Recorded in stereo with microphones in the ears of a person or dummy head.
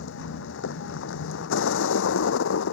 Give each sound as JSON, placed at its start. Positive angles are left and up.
{"t": 0.0, "sound": "a vehicle", "side_deg": 65}